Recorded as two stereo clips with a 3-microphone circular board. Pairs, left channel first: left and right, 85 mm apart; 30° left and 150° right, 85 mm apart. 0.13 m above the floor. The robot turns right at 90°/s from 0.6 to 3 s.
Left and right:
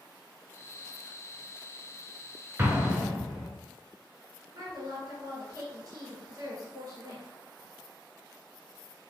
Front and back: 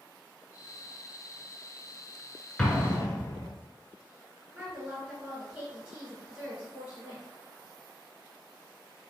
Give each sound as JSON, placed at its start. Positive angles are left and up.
{"t": 2.6, "sound": "an explosion", "azimuth_deg": -45, "distance_m": 0.6}
{"t": 4.5, "sound": "a woman speaking", "azimuth_deg": -75, "distance_m": 1.6}